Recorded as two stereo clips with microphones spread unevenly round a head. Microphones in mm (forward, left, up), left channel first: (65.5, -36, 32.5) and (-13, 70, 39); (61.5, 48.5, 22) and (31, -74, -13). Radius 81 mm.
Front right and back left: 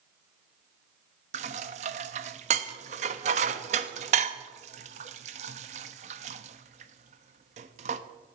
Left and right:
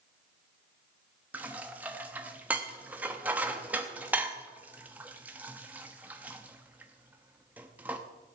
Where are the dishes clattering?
175° left, 0.7 m.